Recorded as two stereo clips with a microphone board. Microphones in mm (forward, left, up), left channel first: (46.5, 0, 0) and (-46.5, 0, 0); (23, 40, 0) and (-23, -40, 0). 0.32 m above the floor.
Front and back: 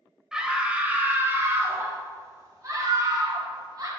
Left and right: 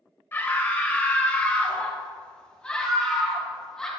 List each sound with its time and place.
0.3 s a scream: 105° left, 1.3 m; by 3.9 s 145° left, 2.5 m